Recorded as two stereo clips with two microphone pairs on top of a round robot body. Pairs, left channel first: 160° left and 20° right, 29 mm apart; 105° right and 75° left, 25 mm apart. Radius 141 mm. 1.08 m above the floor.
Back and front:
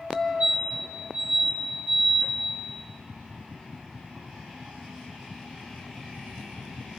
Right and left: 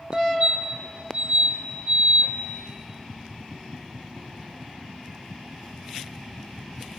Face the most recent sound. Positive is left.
turn(degrees=10)